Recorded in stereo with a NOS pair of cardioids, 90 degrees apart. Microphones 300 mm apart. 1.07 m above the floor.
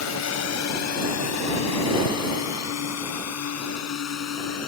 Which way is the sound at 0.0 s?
65° left.